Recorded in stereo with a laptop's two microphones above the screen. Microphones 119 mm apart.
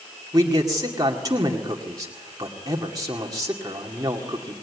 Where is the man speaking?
30° right (ahead or behind), 2 m.